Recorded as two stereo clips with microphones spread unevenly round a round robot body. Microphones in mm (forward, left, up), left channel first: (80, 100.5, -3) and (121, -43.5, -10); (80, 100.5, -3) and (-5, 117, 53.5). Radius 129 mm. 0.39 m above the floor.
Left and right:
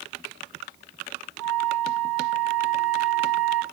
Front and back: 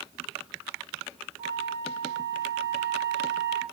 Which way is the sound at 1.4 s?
95° right.